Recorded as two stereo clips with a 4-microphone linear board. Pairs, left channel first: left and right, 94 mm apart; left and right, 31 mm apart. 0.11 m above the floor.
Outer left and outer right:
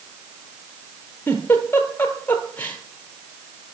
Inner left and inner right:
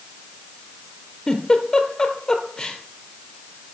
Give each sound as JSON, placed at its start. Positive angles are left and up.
{"t": 1.3, "sound": "a giggle", "side_deg": 20, "distance_m": 1.0}